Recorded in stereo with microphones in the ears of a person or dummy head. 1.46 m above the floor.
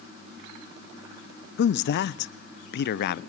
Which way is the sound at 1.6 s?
60° left (ahead or behind).